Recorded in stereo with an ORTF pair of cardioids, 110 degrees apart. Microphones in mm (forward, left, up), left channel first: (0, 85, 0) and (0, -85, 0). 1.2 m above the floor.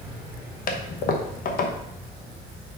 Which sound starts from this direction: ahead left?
A toilet flushing, at 0.7 s.